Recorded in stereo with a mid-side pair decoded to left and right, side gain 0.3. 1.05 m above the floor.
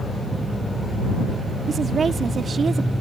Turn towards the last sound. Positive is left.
turn(degrees=-60)